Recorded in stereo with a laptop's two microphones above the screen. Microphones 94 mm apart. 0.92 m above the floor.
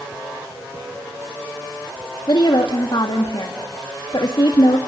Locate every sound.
2.3 s a woman speaking: 60° left (ahead or behind), 1.8 m